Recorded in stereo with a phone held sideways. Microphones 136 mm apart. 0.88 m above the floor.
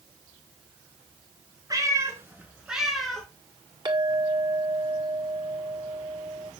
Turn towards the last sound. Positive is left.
turn(degrees=-30)  # may be behind; listen again after turning